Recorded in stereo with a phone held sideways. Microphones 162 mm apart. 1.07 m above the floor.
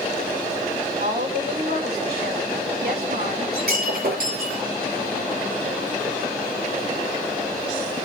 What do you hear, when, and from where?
1.0 s a woman speaking: 80° right, 9 m
3.5 s breaking glass: 75° right (ahead or behind), 7.5 m